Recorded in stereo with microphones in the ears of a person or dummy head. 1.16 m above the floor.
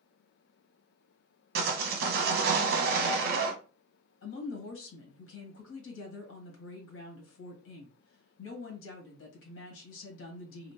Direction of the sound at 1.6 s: 55° right (ahead or behind).